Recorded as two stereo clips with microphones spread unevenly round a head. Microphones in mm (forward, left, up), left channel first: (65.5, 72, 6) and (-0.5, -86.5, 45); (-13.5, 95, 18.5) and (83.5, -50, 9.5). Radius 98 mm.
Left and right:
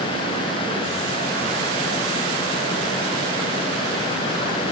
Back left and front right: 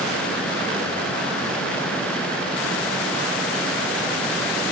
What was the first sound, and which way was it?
Only background noise.